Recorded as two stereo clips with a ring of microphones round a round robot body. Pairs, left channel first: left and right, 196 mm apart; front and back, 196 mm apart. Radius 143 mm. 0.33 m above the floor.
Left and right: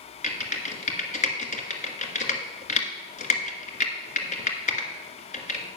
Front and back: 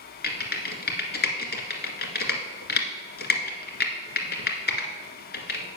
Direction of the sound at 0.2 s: 35° left.